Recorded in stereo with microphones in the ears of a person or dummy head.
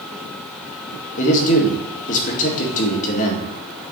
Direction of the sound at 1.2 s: 45° left (ahead or behind).